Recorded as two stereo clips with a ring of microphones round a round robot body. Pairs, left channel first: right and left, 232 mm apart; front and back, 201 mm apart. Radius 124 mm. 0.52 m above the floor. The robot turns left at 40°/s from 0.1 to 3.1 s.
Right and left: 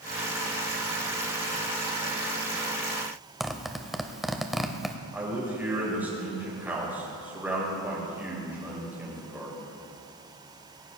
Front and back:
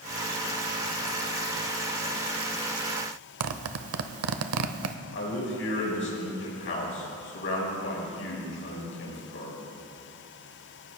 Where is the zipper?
Straight behind, 0.7 m.